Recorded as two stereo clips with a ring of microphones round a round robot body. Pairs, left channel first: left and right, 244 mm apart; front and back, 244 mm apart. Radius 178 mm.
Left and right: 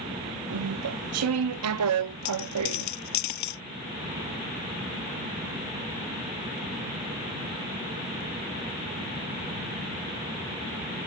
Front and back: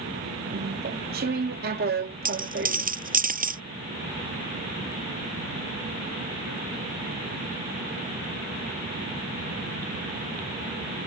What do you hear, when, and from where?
0.5 s chewing: 120° right
2.2 s a dropped coin: 125° left